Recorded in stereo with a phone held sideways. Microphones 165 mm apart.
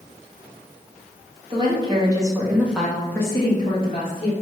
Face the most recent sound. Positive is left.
turn(degrees=40)  # may be behind; listen again after turning